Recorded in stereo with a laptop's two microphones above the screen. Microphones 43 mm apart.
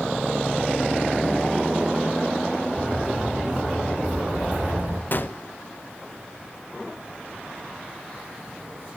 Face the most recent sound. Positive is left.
turn(degrees=50)  # may be behind; listen again after turning